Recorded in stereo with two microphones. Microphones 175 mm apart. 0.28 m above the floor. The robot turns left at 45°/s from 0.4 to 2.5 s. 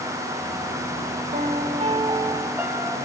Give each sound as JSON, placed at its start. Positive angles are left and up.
{"t": 1.3, "sound": "a piano", "azimuth_deg": -115, "distance_m": 1.8}